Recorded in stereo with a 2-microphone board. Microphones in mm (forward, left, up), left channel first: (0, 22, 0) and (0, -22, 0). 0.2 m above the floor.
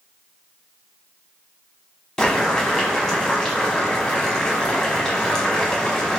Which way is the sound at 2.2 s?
15° left (ahead or behind).